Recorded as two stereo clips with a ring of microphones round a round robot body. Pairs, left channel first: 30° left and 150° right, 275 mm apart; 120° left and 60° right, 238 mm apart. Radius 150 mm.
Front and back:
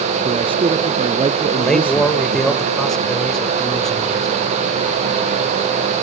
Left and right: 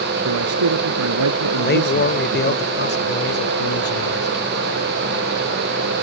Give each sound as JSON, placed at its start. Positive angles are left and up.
{"t": 0.2, "sound": "a man speaking", "azimuth_deg": -75}
{"t": 1.6, "sound": "a man speaking", "azimuth_deg": 120}